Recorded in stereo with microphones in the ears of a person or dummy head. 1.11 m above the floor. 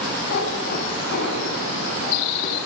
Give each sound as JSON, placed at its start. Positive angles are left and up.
{"t": 0.3, "sound": "a cat meowing", "side_deg": 60, "distance_m": 3.0}